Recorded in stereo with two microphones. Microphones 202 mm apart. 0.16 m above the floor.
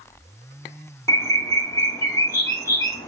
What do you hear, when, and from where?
1.1 s a bird: 15° left (ahead or behind), 0.6 m